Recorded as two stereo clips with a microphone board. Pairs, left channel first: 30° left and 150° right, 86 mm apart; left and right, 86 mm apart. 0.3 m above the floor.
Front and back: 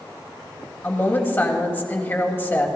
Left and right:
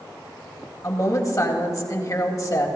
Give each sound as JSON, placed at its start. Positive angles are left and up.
{"t": 0.8, "sound": "a woman speaking", "azimuth_deg": 80, "distance_m": 1.6}